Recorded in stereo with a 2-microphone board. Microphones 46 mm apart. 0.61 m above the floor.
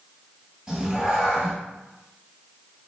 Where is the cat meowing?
15° right (ahead or behind), 1.2 m.